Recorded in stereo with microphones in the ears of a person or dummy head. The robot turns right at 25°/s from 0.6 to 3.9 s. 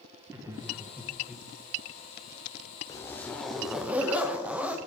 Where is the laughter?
15° right (ahead or behind), 1.1 m; by 1.5 s 5° left (ahead or behind), 1.1 m.